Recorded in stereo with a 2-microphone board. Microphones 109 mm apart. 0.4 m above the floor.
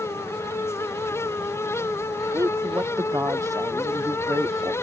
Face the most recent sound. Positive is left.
turn(degrees=-30)  # may be behind; listen again after turning